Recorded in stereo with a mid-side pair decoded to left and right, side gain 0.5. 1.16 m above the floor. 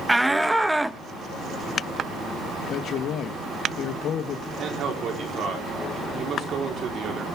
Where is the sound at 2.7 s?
60° left, 1.2 m.